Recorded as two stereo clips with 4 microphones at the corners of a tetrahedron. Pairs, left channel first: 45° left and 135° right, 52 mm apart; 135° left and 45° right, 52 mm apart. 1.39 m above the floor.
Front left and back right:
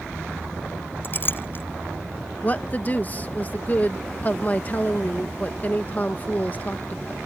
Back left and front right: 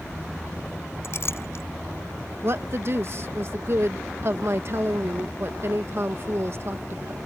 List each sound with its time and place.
1.0 s a clink: 95° left
2.4 s a woman speaking: 10° right